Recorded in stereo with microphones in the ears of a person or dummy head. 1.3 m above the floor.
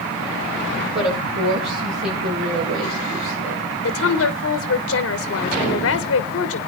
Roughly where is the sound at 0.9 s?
Right.